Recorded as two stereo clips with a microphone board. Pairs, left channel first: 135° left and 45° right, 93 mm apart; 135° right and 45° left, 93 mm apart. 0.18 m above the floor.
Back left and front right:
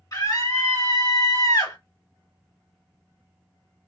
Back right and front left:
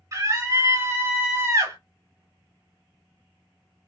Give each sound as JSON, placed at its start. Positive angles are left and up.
{"t": 0.1, "sound": "a scream", "azimuth_deg": 95, "distance_m": 2.5}